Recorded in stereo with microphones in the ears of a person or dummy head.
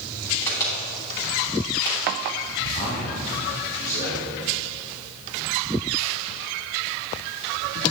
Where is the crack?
20° left (ahead or behind), 3 m.